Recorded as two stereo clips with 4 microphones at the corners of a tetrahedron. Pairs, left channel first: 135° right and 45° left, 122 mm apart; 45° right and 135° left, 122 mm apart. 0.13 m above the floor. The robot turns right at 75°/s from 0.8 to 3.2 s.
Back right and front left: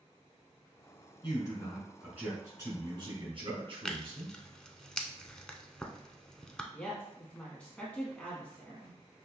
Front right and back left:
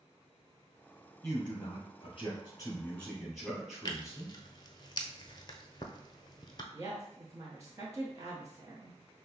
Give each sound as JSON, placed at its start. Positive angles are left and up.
{"t": 1.2, "sound": "a man speaking", "azimuth_deg": -100, "distance_m": 2.5}
{"t": 3.9, "sound": "tearing paper", "azimuth_deg": -55, "distance_m": 0.6}
{"t": 6.7, "sound": "a woman speaking", "azimuth_deg": 155, "distance_m": 1.2}